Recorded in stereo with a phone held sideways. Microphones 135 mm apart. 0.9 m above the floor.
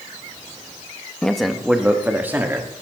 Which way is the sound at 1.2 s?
5° left (ahead or behind).